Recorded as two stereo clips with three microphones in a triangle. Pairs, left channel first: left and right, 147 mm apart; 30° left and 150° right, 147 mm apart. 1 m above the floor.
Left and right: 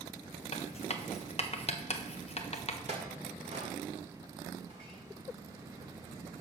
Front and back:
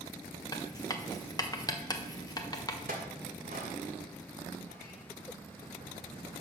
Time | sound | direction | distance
0.5 | writing | 85° left | 0.8 m
2.9 | a clink | 135° right | 1.8 m